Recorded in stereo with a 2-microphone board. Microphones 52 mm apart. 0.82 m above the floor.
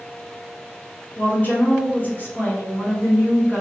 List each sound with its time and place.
1.2 s a woman speaking: 40° left (ahead or behind), 1.2 m